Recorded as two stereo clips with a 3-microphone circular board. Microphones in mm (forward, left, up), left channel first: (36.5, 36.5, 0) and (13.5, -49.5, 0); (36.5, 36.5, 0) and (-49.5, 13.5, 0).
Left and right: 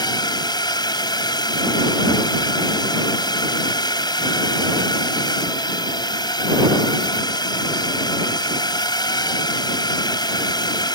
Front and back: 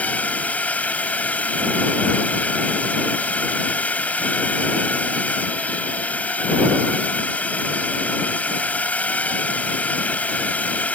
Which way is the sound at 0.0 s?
85° left.